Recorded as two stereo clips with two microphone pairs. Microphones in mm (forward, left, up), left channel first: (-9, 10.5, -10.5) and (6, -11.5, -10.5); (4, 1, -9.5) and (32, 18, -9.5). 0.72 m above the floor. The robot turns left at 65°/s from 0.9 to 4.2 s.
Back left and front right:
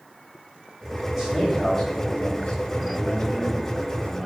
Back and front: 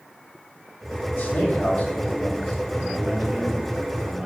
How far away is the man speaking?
About 3 m.